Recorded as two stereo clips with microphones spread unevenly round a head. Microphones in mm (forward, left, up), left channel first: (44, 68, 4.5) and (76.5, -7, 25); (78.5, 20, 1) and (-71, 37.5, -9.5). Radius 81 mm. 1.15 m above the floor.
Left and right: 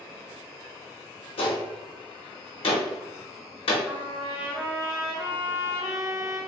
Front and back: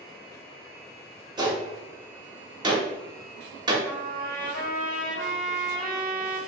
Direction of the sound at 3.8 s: 170° left.